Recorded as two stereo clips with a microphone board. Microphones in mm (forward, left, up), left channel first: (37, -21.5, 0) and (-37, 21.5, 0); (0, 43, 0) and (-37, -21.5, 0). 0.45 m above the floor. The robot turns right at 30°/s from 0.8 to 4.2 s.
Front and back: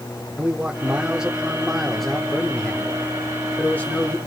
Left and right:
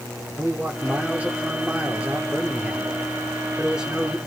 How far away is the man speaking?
About 1.1 m.